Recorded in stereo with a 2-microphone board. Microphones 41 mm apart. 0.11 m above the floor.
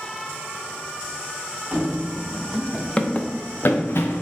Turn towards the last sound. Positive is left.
turn(degrees=80)